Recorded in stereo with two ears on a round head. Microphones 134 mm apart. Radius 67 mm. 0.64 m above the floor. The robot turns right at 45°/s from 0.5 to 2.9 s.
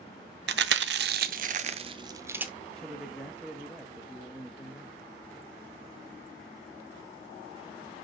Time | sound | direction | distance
0.5 | chewing | 80° right | 0.5 m
2.7 | a man speaking | 5° left (ahead or behind) | 0.8 m